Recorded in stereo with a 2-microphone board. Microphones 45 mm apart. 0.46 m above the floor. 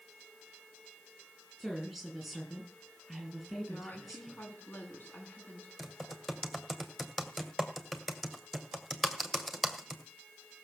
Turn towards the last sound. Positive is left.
turn(degrees=5)  # may be behind; listen again after turning